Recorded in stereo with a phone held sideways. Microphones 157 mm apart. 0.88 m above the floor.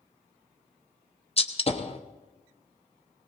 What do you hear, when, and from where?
1.4 s a gunshot: 40° left (ahead or behind), 1.0 m